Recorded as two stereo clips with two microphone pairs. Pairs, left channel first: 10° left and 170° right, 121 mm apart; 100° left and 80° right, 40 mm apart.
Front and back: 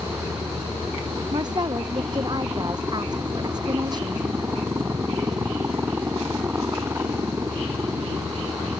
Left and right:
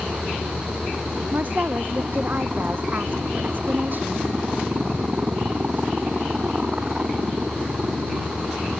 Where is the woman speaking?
115° right.